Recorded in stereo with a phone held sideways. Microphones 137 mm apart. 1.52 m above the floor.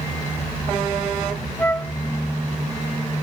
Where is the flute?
15° left (ahead or behind).